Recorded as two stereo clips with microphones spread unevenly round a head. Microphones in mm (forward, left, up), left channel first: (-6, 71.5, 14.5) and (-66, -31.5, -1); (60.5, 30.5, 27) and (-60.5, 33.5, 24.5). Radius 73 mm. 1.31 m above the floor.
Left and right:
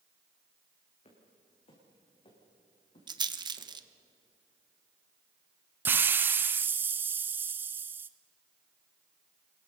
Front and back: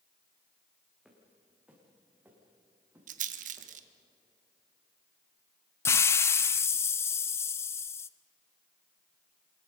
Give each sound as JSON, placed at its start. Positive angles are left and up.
{"t": 1.1, "sound": "footsteps", "azimuth_deg": 90, "distance_m": 6.5}
{"t": 3.1, "sound": "a rattle", "azimuth_deg": -170, "distance_m": 1.1}
{"t": 5.8, "sound": "a hiss", "azimuth_deg": -65, "distance_m": 0.5}